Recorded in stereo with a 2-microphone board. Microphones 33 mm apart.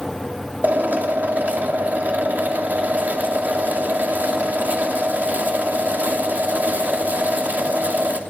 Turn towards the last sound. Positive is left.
turn(degrees=-65)  # may be behind; listen again after turning